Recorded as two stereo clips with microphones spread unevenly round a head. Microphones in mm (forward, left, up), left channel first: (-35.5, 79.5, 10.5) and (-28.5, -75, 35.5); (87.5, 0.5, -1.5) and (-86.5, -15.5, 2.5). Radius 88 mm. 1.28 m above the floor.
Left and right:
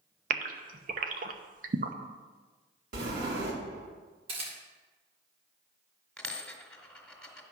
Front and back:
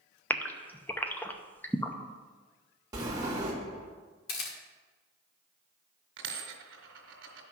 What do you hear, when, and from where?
0.3 s a gasp: 75° right, 0.7 m
2.9 s a sliding door: 105° right, 2.5 m
4.3 s a camera shutter: 30° right, 1.9 m
6.2 s a dropped coin: straight behind, 2 m